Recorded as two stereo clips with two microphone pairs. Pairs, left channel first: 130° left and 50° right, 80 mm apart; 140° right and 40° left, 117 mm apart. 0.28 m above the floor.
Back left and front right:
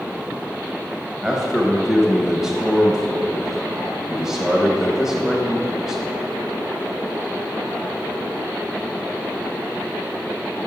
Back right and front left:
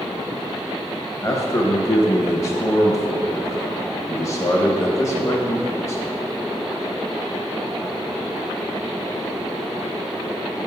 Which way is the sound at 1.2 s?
130° right.